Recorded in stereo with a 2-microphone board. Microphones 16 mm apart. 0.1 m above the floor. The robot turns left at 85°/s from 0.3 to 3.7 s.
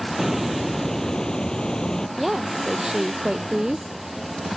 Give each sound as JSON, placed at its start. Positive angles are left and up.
{"t": 0.2, "sound": "a hiss", "azimuth_deg": -165}
{"t": 2.2, "sound": "a woman speaking", "azimuth_deg": 0}